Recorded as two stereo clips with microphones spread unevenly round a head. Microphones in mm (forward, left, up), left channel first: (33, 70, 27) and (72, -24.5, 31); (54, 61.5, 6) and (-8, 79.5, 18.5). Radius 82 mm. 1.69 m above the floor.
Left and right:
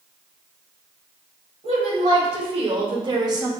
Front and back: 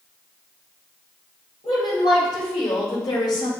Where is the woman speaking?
55° right, 1.6 m; by 3.5 s 20° right, 0.8 m.